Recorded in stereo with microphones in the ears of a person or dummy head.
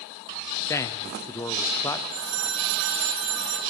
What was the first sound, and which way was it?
A man speaking, 15° left (ahead or behind).